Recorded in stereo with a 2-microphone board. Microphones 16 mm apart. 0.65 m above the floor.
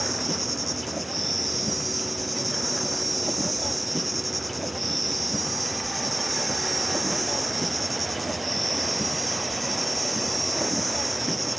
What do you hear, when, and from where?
0.0 s an insect: centre (ahead or behind)